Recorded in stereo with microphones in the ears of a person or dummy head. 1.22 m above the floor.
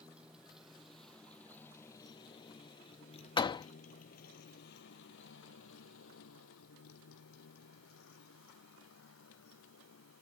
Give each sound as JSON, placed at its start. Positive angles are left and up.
{"t": 0.0, "sound": "a motorcycle", "side_deg": -5}
{"t": 3.4, "sound": "a door slam", "side_deg": 25}